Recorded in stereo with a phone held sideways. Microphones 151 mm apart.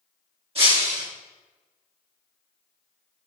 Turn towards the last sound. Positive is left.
turn(degrees=-40)  # may be behind; listen again after turning